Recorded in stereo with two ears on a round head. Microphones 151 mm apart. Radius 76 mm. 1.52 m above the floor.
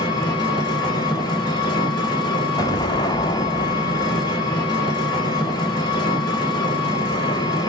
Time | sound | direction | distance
0.0 | an engine running | 25° left (ahead or behind) | 1.1 m
2.6 | an explosion | 25° left (ahead or behind) | 0.5 m